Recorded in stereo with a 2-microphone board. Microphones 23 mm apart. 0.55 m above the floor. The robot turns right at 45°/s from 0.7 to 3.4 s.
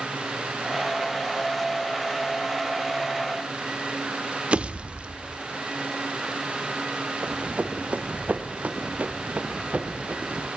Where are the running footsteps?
55° right (ahead or behind), 2 m.